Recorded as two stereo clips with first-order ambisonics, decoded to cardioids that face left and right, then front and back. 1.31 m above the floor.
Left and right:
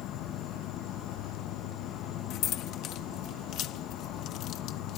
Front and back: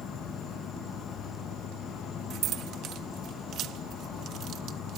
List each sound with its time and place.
0.0 s an insect: 55° left
2.3 s keys jangling: 130° left